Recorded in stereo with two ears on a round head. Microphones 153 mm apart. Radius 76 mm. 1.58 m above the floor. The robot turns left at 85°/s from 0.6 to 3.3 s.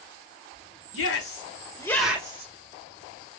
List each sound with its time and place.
0.9 s a shout: 85° left, 1.5 m; by 2.5 s 40° right (ahead or behind), 1.5 m